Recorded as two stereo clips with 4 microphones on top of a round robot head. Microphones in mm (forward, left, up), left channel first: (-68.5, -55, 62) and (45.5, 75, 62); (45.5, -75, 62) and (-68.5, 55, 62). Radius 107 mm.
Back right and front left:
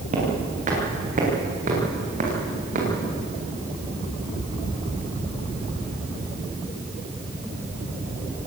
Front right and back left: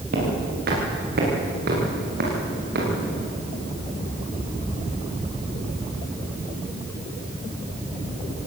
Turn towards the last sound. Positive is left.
turn(degrees=95)